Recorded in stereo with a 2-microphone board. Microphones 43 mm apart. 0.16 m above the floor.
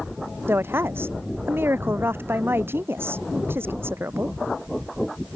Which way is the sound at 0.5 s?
60° right (ahead or behind).